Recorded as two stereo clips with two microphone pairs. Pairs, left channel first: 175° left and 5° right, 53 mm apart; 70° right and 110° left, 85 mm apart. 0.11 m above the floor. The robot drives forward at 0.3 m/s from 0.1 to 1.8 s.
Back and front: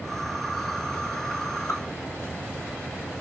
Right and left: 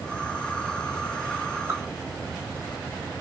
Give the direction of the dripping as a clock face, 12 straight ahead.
7 o'clock.